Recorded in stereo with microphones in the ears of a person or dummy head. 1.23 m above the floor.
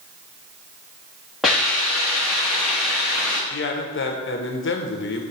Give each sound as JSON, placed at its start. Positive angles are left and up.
{"t": 1.4, "sound": "a hiss", "side_deg": 0, "distance_m": 0.9}
{"t": 3.5, "sound": "a man speaking", "side_deg": 55, "distance_m": 0.6}